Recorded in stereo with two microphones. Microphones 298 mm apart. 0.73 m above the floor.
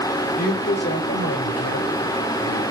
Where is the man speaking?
30° left (ahead or behind), 3.5 m; by 2.6 s 65° left (ahead or behind), 4.5 m.